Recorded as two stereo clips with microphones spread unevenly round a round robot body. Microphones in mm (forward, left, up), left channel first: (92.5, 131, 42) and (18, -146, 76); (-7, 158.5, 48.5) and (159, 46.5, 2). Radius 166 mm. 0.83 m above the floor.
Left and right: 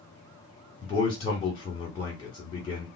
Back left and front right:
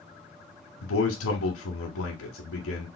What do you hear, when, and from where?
0.8 s a man speaking: 145° left, 1.3 m